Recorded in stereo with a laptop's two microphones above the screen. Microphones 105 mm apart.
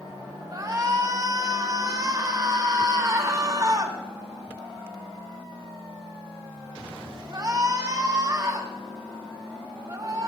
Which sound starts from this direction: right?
A shout, at 0.5 s.